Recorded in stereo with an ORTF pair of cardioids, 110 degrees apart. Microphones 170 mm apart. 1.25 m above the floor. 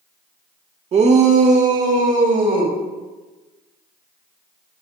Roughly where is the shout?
Ahead right.